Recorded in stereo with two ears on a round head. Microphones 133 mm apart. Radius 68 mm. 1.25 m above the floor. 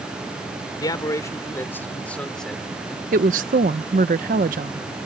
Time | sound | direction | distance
0.8 | a man speaking | 30° left (ahead or behind) | ?
3.1 | a woman speaking | 55° right (ahead or behind) | ?